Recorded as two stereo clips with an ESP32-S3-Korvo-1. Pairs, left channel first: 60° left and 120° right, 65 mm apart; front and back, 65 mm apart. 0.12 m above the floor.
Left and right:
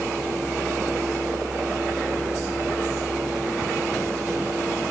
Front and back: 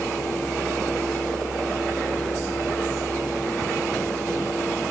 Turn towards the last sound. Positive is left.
No sound to turn to.